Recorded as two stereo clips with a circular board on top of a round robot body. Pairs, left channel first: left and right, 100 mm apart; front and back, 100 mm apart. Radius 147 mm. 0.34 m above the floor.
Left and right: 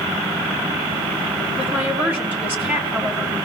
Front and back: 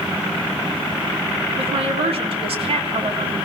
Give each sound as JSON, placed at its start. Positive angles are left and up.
{"t": 1.6, "sound": "a woman speaking", "azimuth_deg": -160, "distance_m": 5.0}